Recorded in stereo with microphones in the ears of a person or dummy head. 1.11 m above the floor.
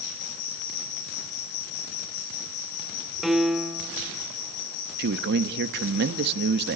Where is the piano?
Centre (ahead or behind), 1.3 m.